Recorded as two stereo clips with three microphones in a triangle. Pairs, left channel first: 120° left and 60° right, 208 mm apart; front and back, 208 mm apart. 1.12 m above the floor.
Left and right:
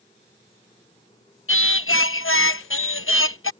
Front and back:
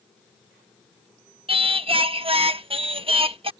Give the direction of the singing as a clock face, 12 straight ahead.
8 o'clock.